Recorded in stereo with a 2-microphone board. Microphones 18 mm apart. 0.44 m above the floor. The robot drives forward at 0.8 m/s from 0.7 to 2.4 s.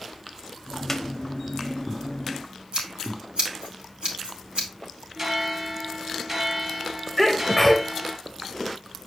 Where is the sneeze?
10° right (ahead or behind), 1.1 m.